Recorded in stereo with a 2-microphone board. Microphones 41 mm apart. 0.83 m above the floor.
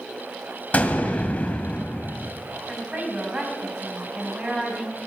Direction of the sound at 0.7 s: 40° left (ahead or behind).